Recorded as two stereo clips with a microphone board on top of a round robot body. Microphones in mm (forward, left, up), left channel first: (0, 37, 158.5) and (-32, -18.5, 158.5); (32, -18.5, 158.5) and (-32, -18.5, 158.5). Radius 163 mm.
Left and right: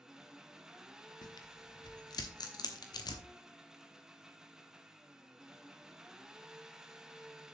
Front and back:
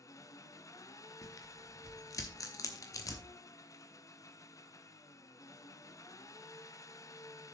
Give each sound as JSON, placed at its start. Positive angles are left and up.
{"t": 0.0, "sound": "an engine running", "azimuth_deg": -35, "distance_m": 0.8}
{"t": 1.2, "sound": "tearing paper", "azimuth_deg": 40, "distance_m": 1.0}